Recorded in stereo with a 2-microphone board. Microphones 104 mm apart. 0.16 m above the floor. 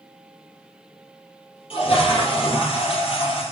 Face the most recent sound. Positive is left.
turn(degrees=60)  # may be behind; listen again after turning